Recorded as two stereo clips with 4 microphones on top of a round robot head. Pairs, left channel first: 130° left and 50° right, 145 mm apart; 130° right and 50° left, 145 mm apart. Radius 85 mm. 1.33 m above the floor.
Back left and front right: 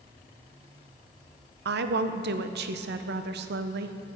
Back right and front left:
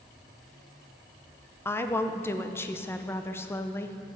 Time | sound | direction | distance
1.6 | a woman speaking | 55° right | 0.6 m